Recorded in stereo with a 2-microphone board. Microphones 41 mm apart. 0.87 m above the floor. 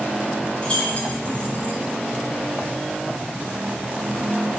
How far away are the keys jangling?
About 5 m.